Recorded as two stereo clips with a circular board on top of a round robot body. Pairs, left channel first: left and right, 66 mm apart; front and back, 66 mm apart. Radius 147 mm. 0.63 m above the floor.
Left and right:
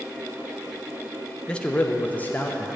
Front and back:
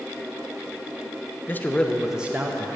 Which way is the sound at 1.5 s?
25° left.